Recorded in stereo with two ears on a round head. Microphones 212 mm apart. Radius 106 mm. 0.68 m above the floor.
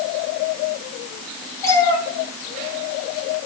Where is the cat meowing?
15° left (ahead or behind), 3.5 m.